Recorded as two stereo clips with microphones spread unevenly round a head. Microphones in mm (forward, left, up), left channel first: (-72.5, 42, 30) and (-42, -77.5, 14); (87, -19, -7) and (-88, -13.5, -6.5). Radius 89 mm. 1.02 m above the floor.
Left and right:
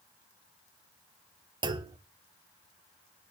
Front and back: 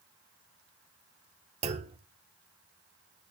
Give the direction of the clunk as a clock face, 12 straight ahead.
4 o'clock.